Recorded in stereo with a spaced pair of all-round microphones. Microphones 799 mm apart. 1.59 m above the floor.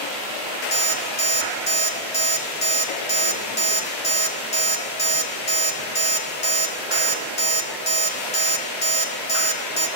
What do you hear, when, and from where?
0.7 s an alarm clock: 55° left (ahead or behind), 1.8 m